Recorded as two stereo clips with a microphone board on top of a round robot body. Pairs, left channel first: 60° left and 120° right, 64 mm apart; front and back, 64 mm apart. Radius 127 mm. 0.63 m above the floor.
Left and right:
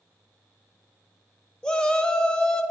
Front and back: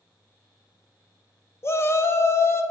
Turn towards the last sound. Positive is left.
turn(degrees=-10)